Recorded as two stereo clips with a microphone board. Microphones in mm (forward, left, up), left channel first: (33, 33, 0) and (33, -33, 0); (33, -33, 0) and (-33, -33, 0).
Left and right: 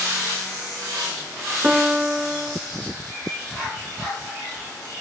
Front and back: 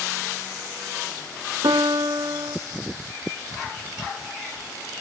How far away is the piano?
About 0.5 m.